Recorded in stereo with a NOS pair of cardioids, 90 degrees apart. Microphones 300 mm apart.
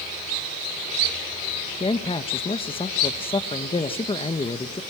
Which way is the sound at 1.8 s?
20° left.